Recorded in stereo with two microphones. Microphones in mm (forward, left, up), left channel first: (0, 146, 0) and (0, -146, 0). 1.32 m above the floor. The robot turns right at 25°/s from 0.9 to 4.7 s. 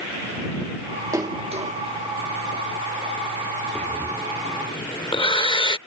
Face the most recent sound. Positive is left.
turn(degrees=15)  # may be behind; listen again after turning